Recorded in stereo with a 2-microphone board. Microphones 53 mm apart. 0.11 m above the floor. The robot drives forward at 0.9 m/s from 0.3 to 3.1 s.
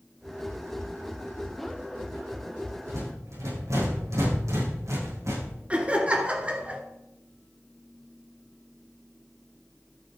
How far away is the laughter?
About 1.6 m.